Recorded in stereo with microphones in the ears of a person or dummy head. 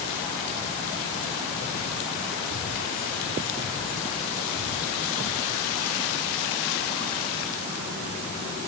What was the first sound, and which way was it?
Only background noise.